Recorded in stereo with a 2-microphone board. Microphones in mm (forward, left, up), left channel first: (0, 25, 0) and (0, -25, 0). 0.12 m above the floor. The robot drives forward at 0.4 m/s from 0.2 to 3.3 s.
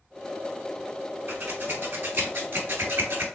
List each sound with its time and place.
1.3 s scissors: 40° right (ahead or behind), 1.1 m; by 3.2 s 50° right (ahead or behind), 0.9 m